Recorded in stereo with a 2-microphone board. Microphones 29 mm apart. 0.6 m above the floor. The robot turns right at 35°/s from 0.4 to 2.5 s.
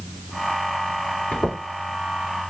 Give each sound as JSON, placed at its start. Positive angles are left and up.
{"t": 1.3, "sound": "footsteps", "side_deg": 40, "distance_m": 2.5}